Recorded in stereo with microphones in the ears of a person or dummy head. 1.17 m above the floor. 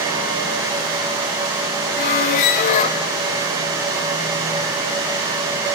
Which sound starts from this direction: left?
A squeak, at 2.0 s.